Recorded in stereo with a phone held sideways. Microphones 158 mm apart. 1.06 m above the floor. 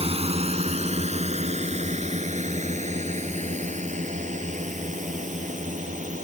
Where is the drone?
40° right (ahead or behind); by 6.2 s 50° right (ahead or behind).